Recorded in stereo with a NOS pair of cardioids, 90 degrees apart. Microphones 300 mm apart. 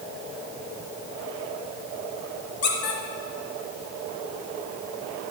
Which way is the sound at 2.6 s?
55° left.